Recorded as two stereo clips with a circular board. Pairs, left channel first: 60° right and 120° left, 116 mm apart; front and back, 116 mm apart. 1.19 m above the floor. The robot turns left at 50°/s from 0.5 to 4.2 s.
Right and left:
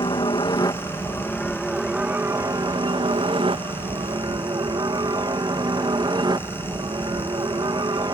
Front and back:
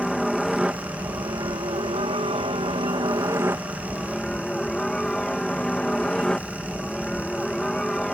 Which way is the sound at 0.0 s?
90° right.